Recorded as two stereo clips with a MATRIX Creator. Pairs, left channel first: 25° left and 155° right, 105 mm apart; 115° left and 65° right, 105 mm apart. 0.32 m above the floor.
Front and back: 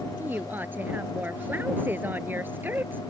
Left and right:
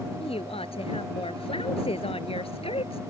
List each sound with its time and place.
0.2 s a woman speaking: 130° left